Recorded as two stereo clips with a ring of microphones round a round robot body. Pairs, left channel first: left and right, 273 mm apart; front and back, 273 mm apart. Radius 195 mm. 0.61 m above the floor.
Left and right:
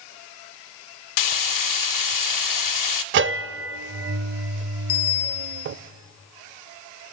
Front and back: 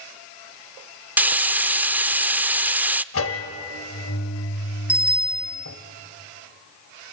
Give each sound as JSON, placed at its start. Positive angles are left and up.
{"t": 1.2, "sound": "frying", "azimuth_deg": 95, "distance_m": 0.5}
{"t": 3.1, "sound": "a bell", "azimuth_deg": -45, "distance_m": 0.5}
{"t": 4.9, "sound": "a bicycle bell", "azimuth_deg": 95, "distance_m": 3.5}